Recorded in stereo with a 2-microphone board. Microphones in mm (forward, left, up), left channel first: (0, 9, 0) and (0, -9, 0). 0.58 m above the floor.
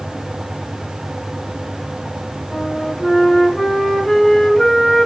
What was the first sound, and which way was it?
A flute, 25° left (ahead or behind).